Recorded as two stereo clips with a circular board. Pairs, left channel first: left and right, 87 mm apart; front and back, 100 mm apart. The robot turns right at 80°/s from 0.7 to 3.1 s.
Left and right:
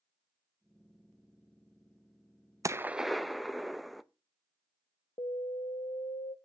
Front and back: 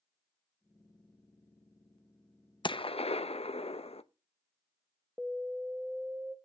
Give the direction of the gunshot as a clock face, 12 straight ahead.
1 o'clock.